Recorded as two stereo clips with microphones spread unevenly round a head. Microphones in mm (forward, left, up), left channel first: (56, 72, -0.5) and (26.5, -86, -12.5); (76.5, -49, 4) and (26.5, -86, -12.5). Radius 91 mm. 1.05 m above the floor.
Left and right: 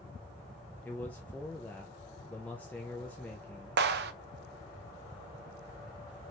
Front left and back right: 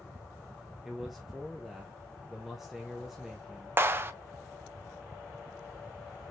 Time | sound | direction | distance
0.8 | a man speaking | 160° left | 0.6 m
3.8 | a clap | 105° right | 0.6 m